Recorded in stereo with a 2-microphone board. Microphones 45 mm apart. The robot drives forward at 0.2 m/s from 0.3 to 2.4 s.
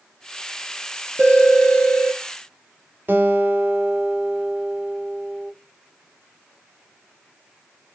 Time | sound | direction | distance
1.2 | a phone ringing | 60° right (ahead or behind) | 1.7 m
3.1 | a guitar | 45° right (ahead or behind) | 1.3 m